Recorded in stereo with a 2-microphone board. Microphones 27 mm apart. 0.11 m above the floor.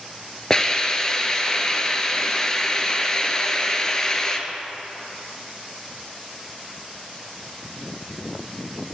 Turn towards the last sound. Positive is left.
turn(degrees=25)  # may be behind; listen again after turning